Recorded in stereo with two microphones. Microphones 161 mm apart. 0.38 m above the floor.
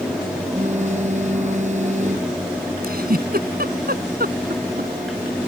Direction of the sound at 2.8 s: 70° right (ahead or behind).